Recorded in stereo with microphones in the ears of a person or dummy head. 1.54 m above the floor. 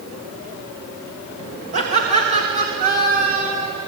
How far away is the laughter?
About 1.8 m.